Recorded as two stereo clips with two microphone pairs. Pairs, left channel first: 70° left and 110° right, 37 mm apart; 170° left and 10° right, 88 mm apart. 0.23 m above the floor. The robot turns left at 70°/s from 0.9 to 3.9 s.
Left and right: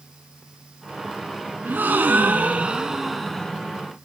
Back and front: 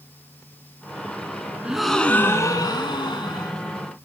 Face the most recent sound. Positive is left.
turn(degrees=110)